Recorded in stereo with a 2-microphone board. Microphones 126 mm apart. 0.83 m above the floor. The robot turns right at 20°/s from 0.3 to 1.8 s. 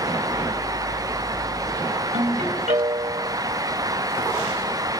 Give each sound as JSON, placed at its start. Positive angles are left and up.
{"t": 2.1, "sound": "a ringtone", "side_deg": -80, "distance_m": 4.0}